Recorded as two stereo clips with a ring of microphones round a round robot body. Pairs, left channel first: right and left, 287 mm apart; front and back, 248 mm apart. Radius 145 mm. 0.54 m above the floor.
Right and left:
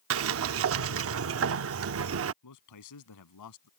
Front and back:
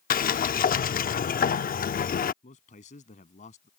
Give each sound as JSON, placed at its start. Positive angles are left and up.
{"t": 0.1, "sound": "a sliding door", "azimuth_deg": 55}
{"t": 2.4, "sound": "a man speaking", "azimuth_deg": -65}